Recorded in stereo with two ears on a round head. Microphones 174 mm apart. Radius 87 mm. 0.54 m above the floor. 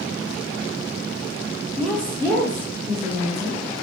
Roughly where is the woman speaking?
Centre.